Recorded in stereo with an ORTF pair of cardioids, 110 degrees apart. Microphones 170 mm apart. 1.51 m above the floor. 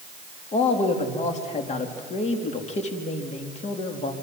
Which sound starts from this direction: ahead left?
A man speaking, at 0.5 s.